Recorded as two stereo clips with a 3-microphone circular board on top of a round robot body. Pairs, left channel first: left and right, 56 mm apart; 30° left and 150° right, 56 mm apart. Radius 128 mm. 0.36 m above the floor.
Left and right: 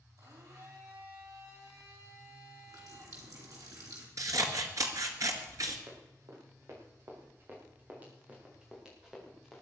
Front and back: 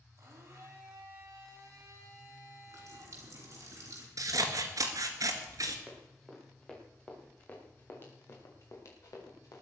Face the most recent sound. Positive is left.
turn(degrees=0)